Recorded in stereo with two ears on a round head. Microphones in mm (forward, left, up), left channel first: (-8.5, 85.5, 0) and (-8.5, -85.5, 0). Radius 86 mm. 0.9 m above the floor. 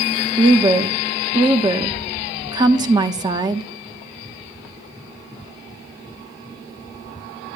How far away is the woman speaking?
About 0.8 m.